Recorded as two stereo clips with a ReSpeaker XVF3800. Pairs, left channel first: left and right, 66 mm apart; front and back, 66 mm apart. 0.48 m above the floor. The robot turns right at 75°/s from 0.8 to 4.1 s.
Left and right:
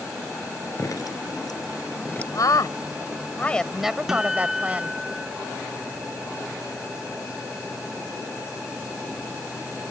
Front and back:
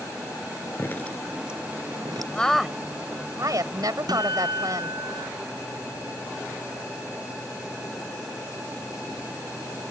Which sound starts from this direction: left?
A woman speaking, at 2.3 s.